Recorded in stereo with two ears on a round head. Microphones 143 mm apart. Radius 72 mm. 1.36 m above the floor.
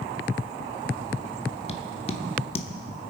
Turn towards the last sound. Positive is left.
turn(degrees=40)  # may be behind; listen again after turning